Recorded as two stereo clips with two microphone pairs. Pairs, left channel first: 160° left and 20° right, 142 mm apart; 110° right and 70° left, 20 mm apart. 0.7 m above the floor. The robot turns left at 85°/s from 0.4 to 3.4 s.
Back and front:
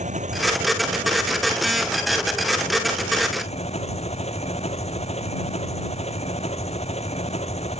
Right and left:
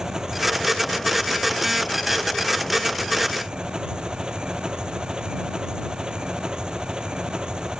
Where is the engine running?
15° left; by 7.8 s 120° left.